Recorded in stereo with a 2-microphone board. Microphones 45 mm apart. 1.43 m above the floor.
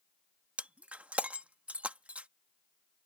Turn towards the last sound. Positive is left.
turn(degrees=-30)  # may be behind; listen again after turning